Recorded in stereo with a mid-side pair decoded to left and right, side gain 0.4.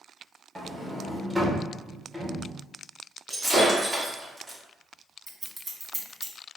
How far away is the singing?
I don't hear singing.